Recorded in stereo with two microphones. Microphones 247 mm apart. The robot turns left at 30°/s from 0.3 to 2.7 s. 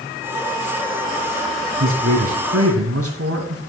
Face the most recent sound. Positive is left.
turn(degrees=-70)  # may be behind; listen again after turning